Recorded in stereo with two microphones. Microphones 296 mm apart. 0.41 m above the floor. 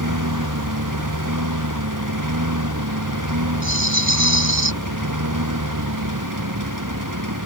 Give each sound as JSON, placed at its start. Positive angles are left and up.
{"t": 0.0, "sound": "a lawn mower", "side_deg": -85}
{"t": 3.6, "sound": "a rattle", "side_deg": 40}